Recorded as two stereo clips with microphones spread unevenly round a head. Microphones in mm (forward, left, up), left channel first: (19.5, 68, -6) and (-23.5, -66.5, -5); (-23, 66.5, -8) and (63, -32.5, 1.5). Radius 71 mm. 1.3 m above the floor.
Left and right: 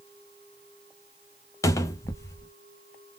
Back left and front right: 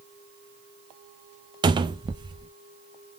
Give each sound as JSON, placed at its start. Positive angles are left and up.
{"t": 1.6, "sound": "a cupboard door", "azimuth_deg": 5, "distance_m": 0.5}